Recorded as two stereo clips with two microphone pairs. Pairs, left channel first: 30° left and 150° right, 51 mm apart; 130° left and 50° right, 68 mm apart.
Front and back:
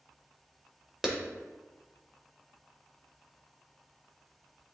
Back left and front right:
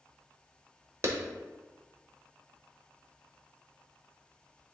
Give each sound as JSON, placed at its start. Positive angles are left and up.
{"t": 1.0, "sound": "a clap", "azimuth_deg": -75, "distance_m": 1.2}